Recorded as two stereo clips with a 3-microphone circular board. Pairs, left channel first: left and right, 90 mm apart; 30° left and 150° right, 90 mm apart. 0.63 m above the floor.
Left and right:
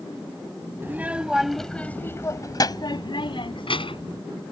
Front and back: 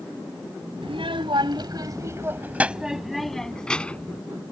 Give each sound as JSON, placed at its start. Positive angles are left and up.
{"t": 0.8, "sound": "a child speaking", "azimuth_deg": -155}